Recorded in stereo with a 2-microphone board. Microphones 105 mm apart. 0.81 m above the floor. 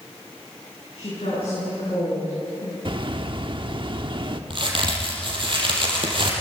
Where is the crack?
50° right (ahead or behind), 5.5 m.